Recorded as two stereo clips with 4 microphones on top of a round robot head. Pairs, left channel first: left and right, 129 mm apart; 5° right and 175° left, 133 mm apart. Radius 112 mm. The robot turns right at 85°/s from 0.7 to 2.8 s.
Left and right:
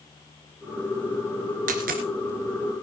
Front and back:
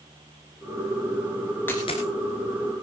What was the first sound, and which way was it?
A dropped coin, 85° right.